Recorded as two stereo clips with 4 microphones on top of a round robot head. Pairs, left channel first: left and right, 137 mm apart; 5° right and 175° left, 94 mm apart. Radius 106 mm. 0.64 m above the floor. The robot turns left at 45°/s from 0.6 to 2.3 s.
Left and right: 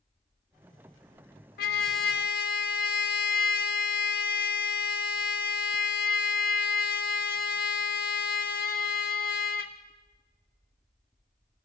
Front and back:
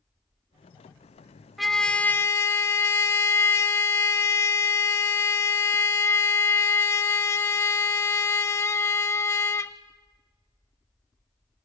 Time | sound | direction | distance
1.6 | a trumpet | 90° left | 0.6 m